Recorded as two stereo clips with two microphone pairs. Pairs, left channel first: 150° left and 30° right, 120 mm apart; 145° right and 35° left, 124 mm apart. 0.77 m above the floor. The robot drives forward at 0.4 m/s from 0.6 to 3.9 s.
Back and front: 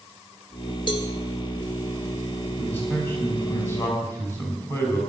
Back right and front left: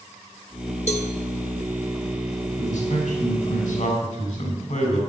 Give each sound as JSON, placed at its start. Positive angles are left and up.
{"t": 0.9, "sound": "a cowbell", "azimuth_deg": -165, "distance_m": 1.9}
{"t": 2.6, "sound": "a man speaking", "azimuth_deg": -140, "distance_m": 5.0}